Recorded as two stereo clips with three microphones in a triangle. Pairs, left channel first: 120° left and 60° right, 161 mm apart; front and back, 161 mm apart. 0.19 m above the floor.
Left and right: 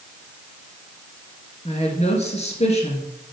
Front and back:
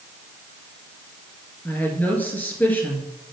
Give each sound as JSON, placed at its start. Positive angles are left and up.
{"t": 1.6, "sound": "a woman speaking", "azimuth_deg": 80, "distance_m": 2.5}